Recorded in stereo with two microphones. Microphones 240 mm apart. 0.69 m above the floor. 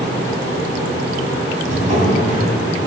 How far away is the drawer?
About 2 m.